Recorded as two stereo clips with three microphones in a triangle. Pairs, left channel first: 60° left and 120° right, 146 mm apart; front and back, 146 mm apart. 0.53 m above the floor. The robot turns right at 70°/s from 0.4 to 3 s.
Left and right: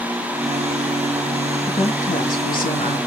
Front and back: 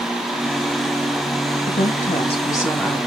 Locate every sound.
1.7 s a woman speaking: 5° left, 3.5 m; by 3.0 s 95° left, 3.5 m